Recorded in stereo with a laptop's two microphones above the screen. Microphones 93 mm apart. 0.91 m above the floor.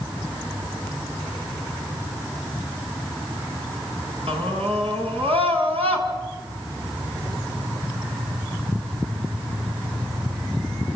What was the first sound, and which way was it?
A scream, 85° right.